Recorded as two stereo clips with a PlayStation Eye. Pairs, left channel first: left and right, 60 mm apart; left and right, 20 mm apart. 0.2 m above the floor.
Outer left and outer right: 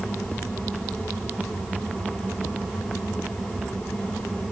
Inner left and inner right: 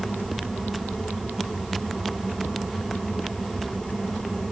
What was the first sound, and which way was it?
Only background noise.